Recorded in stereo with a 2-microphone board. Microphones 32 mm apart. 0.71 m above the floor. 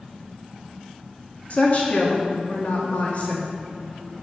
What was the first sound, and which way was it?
A woman speaking, 50° left (ahead or behind).